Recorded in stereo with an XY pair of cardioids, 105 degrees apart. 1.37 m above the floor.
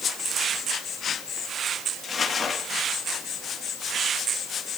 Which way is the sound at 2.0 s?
30° left.